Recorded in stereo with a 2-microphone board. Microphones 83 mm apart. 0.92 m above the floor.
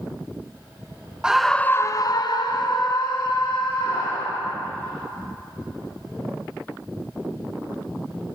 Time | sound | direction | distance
1.2 | a scream | 10° right (ahead or behind) | 0.6 m